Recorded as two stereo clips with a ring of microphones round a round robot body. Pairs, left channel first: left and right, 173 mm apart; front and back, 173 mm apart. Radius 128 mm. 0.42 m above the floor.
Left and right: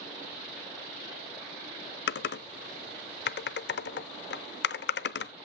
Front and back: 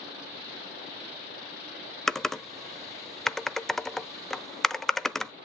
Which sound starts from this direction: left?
Typing on a keyboard, at 2.1 s.